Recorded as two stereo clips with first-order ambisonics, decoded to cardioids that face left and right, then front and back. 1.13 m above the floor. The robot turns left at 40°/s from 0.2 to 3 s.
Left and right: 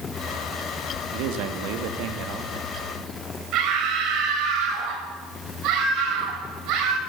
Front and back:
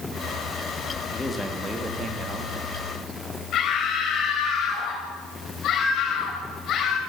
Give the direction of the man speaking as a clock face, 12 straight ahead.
3 o'clock.